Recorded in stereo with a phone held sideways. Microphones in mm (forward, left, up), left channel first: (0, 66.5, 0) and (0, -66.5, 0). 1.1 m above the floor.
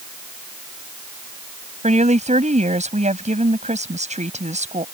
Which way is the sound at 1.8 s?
55° right (ahead or behind).